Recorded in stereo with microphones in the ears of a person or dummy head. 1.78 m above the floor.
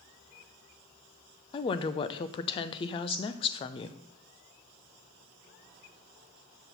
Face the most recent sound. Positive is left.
turn(degrees=25)  # may be behind; listen again after turning